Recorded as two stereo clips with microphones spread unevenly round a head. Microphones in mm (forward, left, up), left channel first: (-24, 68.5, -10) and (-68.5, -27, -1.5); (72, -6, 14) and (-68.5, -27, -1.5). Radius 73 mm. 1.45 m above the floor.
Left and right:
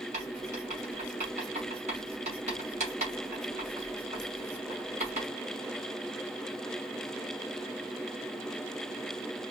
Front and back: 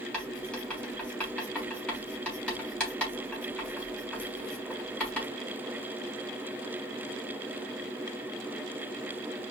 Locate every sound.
0.1 s writing: 75° right, 3 m